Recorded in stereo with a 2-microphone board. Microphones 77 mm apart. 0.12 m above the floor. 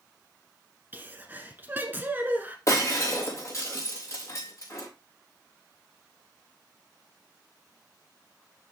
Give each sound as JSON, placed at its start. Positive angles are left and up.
{"t": 0.9, "sound": "a sneeze", "side_deg": -25, "distance_m": 1.2}
{"t": 2.7, "sound": "breaking glass", "side_deg": 40, "distance_m": 4.0}